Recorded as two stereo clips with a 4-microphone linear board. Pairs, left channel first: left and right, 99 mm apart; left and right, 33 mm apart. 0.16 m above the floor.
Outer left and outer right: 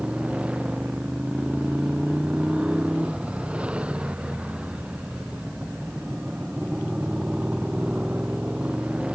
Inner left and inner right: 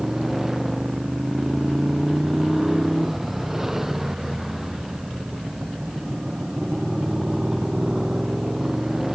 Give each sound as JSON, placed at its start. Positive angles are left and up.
{"t": 0.0, "sound": "a motorcycle", "side_deg": -10}